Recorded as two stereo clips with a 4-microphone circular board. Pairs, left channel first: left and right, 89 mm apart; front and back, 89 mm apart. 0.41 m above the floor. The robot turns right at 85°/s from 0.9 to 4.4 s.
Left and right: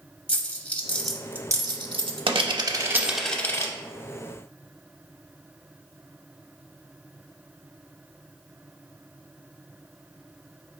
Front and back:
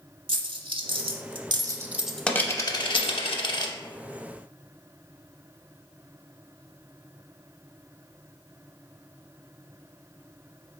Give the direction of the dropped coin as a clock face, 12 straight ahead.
6 o'clock.